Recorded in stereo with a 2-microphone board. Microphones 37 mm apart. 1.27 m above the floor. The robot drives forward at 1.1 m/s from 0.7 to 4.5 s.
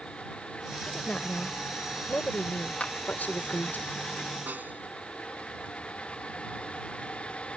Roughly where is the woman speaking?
Left.